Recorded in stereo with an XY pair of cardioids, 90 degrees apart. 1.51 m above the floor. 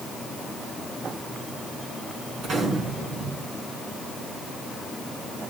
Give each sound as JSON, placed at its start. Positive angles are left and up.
{"t": 2.4, "sound": "a gunshot", "azimuth_deg": -65, "distance_m": 5.5}